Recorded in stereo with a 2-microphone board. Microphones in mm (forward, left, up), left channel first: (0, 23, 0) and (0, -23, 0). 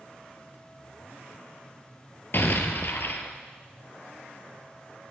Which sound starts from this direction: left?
An explosion, at 2.3 s.